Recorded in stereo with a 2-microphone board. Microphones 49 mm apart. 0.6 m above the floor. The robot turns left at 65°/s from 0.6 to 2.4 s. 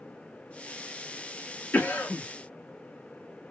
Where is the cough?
110° left, 0.8 m; by 2.3 s 80° left, 0.8 m.